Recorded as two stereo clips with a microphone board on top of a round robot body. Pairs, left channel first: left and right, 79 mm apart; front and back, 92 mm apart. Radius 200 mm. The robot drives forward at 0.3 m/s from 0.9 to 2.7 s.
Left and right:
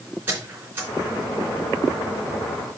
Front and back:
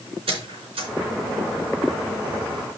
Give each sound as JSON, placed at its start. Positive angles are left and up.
{"t": 0.3, "sound": "a squeak", "azimuth_deg": -160, "distance_m": 3.5}